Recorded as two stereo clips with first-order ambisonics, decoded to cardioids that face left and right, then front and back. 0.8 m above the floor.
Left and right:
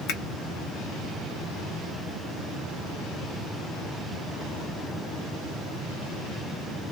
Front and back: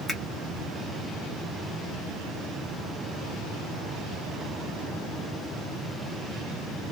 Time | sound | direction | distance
0.1 | a finger snap | 100° left | 1.3 m